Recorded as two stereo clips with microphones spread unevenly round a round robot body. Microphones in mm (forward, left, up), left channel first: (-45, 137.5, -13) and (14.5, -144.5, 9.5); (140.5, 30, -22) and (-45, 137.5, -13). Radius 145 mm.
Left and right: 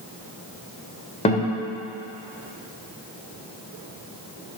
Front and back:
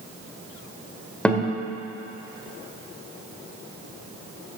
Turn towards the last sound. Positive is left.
turn(degrees=50)